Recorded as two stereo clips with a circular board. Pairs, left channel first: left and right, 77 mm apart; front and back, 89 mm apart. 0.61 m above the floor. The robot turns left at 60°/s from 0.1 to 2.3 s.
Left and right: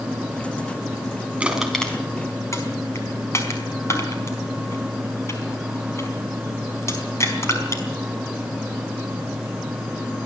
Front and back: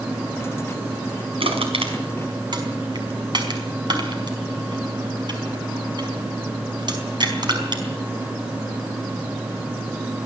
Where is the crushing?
165° right, 4.5 m; by 7.8 s 145° left, 4.5 m.